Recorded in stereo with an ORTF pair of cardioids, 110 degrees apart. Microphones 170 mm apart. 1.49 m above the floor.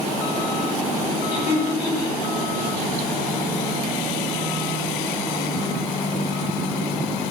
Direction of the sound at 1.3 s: 35° left.